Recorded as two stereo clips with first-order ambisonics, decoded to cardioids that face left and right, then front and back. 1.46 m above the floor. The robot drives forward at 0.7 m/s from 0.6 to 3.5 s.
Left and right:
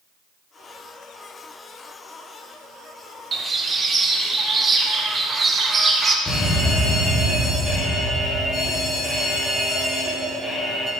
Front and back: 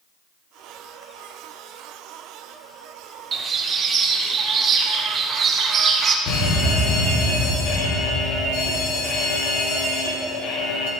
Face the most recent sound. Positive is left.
turn(degrees=15)